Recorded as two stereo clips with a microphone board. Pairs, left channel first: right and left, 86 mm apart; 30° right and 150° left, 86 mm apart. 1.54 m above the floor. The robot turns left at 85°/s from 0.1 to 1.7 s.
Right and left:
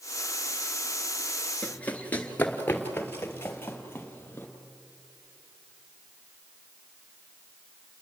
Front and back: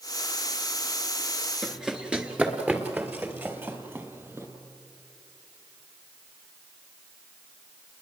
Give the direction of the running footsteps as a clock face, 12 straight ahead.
4 o'clock.